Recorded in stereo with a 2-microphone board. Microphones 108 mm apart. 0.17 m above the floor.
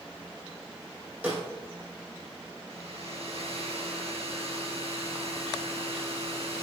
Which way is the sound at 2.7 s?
65° right (ahead or behind).